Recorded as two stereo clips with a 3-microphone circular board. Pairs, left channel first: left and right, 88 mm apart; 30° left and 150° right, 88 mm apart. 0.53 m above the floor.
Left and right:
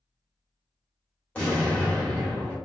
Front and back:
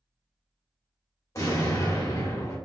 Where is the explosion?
20° left, 1.5 m.